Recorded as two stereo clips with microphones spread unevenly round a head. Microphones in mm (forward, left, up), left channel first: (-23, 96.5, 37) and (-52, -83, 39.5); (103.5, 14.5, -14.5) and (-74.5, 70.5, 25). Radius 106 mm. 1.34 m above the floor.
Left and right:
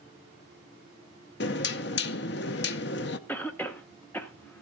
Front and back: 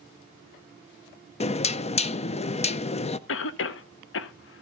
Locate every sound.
1.4 s knocking: 40° left, 0.6 m
3.3 s a cough: straight ahead, 0.8 m